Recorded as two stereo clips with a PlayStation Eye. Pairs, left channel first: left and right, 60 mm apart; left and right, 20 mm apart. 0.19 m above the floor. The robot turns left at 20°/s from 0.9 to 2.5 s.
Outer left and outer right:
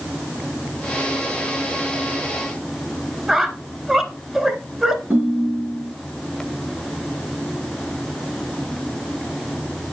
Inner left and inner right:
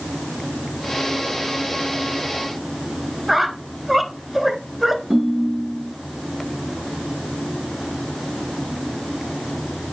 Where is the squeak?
10° right (ahead or behind), 1.0 m.